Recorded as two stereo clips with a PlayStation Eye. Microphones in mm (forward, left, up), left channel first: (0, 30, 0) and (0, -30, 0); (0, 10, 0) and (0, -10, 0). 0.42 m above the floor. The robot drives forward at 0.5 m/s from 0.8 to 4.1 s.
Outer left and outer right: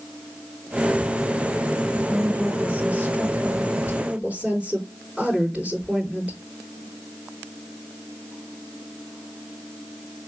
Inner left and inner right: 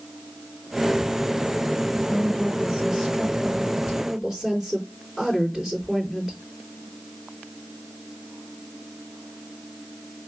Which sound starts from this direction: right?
A woman speaking, at 1.9 s.